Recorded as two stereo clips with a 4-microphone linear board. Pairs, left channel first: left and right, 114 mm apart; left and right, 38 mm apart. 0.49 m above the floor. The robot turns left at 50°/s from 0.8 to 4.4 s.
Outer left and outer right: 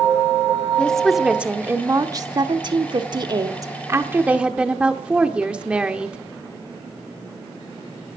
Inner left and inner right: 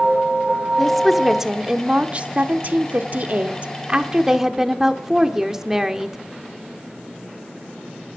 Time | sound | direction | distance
0.8 | a woman speaking | 15° left | 0.9 m